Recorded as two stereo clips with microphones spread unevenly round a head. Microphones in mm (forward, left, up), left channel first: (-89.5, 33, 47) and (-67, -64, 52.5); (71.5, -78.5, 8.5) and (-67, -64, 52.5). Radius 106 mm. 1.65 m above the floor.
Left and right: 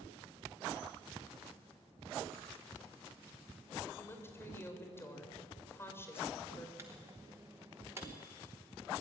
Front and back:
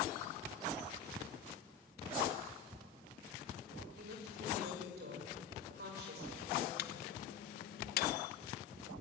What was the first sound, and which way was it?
A woman speaking, 170° left.